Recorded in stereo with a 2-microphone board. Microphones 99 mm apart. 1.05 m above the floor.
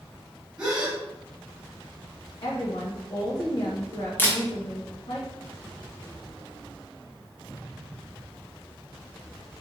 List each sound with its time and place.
0.6 s a gasp: 10° right (ahead or behind), 1.2 m
2.4 s a woman speaking: 50° left (ahead or behind), 0.8 m
4.2 s a camera shutter: 20° left (ahead or behind), 1.1 m